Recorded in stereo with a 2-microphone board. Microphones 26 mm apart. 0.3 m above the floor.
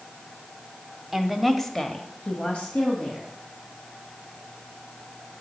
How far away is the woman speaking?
About 1.2 m.